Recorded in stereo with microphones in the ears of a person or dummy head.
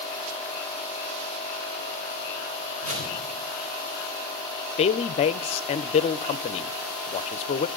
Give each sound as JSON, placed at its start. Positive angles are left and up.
{"t": 2.8, "sound": "a whoosh", "side_deg": -40, "distance_m": 4.0}
{"t": 4.8, "sound": "a woman speaking", "side_deg": 30, "distance_m": 0.5}